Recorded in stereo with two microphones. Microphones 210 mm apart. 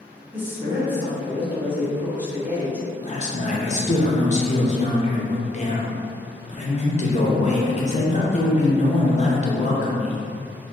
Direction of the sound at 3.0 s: 35° left (ahead or behind).